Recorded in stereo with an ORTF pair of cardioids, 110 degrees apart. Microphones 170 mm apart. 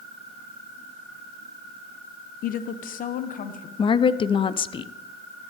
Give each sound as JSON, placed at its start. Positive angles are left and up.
{"t": 2.4, "sound": "a woman speaking", "azimuth_deg": 60, "distance_m": 0.7}
{"t": 3.8, "sound": "a woman speaking", "azimuth_deg": 30, "distance_m": 0.6}